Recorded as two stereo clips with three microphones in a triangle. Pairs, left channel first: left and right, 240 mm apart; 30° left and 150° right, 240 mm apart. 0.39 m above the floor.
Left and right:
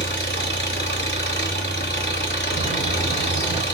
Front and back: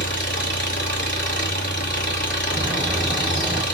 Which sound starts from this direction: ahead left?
An engine running, at 0.0 s.